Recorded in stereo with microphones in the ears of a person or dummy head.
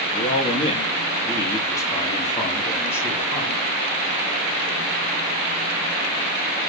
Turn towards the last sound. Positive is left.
turn(degrees=10)  # may be behind; listen again after turning